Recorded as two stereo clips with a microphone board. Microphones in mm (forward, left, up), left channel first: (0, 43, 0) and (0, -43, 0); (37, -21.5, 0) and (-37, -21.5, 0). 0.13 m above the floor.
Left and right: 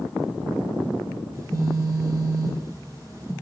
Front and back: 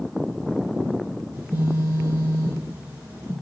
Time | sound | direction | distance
1.3 | a phone buzzing | 120° right | 1.7 m